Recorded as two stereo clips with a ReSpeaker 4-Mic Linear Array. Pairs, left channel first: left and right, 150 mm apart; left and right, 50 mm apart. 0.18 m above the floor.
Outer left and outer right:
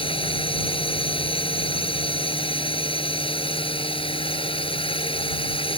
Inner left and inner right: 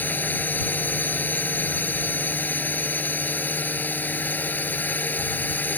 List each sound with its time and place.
0.0 s a drone: 35° left (ahead or behind)